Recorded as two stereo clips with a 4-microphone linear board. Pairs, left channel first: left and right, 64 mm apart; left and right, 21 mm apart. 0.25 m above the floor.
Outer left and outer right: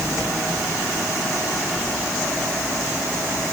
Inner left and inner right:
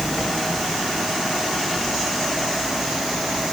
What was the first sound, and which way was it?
Only background noise.